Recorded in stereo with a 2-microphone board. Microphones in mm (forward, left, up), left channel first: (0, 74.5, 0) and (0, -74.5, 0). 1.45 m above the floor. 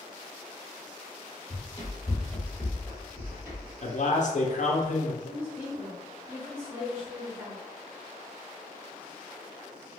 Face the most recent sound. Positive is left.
turn(degrees=-15)  # may be behind; listen again after turning